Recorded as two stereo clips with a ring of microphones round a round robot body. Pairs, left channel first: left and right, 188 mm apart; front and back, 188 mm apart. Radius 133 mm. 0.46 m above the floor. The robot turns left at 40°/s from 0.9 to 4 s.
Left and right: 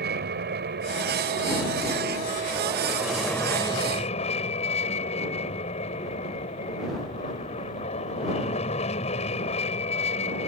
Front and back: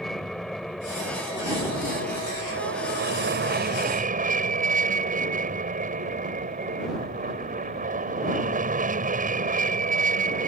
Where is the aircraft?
90° right; by 10.5 s 145° left.